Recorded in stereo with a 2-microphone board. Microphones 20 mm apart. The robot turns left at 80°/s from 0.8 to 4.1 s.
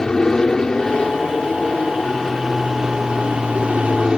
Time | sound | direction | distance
0.0 | an aircraft | 140° left | ?